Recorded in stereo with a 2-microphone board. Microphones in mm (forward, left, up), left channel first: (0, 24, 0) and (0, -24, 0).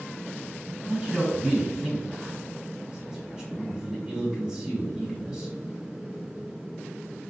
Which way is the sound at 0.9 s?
15° right (ahead or behind).